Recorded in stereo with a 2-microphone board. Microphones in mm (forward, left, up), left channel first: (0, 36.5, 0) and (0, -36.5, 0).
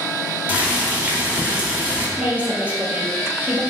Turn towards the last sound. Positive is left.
turn(degrees=-20)  # may be behind; listen again after turning